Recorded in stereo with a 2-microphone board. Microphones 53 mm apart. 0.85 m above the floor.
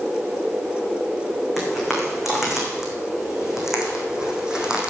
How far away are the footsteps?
About 4.5 m.